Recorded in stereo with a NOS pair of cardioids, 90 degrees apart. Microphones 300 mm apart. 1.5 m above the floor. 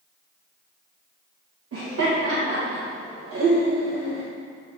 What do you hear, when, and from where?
1.7 s laughter: 50° right, 2 m